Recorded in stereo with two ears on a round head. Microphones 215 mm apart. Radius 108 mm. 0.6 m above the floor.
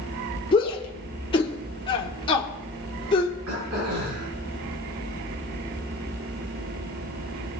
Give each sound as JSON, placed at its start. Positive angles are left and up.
{"t": 0.5, "sound": "a shout", "side_deg": 20, "distance_m": 1.7}
{"t": 3.5, "sound": "throat clearing", "side_deg": -65, "distance_m": 6.0}